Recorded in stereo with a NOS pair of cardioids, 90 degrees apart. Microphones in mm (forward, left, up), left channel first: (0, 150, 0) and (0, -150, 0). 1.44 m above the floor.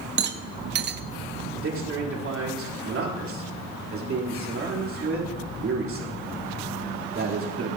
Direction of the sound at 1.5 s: 45° right.